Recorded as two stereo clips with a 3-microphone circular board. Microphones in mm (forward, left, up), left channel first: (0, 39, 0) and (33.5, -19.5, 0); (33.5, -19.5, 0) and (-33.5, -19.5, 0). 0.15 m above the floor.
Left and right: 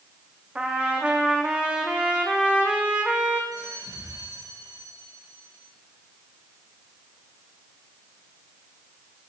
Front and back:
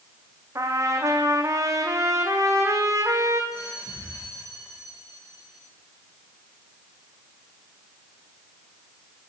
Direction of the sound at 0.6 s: 135° right.